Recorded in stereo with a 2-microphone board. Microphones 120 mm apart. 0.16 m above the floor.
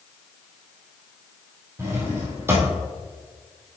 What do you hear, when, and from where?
1.8 s a drawer: 20° right (ahead or behind), 2 m